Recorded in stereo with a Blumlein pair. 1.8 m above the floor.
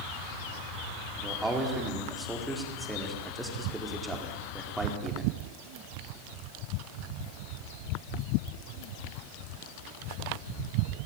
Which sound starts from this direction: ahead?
A man speaking, at 1.2 s.